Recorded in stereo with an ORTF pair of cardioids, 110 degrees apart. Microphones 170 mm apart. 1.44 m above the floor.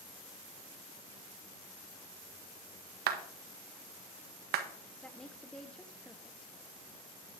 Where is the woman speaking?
5° left, 1.2 m.